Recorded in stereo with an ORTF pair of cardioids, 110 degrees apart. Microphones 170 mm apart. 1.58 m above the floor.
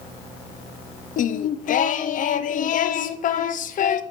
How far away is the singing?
About 0.7 m.